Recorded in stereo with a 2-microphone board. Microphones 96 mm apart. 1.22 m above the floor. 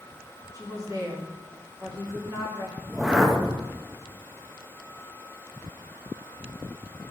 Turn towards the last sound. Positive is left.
turn(degrees=-5)  # may be behind; listen again after turning